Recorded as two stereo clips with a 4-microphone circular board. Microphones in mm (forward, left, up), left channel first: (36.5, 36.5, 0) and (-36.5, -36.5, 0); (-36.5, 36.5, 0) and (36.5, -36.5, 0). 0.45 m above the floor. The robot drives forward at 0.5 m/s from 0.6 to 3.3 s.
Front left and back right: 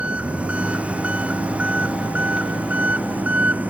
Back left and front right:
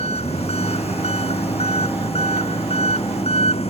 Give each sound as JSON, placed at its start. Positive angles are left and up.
{"t": 0.0, "sound": "an engine running", "azimuth_deg": 145}